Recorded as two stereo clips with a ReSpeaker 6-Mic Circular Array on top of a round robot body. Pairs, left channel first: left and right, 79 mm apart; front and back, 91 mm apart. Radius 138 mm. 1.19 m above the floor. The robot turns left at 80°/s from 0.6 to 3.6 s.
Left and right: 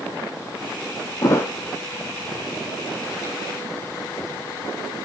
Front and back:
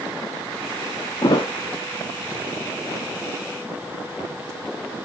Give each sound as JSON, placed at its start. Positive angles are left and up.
{"t": 1.2, "sound": "a thud", "azimuth_deg": 50, "distance_m": 0.9}